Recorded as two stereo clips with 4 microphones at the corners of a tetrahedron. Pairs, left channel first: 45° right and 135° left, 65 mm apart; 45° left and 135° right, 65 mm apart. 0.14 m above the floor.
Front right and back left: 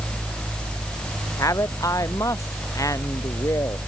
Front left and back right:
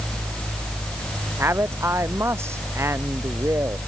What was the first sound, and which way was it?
A man speaking, 85° right.